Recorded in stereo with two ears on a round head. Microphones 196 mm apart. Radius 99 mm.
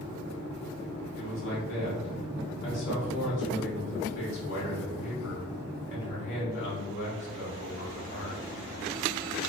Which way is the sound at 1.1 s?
55° left (ahead or behind).